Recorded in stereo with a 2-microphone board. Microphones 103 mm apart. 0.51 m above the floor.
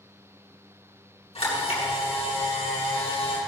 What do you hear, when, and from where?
1.4 s a camera shutter: 70° left (ahead or behind), 7.5 m